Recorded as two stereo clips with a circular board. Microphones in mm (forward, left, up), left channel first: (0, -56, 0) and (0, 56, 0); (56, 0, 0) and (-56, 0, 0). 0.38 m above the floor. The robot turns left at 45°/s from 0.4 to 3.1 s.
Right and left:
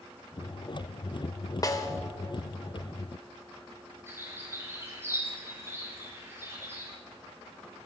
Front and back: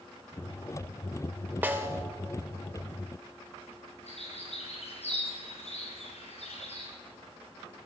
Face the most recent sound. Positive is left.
turn(degrees=20)